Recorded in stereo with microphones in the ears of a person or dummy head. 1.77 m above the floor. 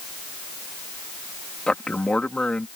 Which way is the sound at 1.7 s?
10° left (ahead or behind).